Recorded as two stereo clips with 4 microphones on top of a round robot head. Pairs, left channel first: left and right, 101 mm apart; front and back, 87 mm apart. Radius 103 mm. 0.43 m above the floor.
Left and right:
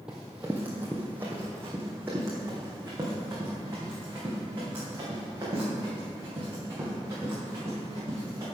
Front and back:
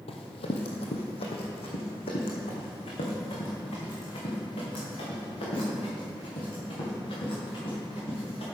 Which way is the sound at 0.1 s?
5° right.